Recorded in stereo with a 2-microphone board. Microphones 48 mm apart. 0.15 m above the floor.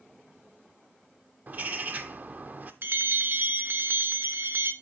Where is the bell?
45° right (ahead or behind), 0.8 m.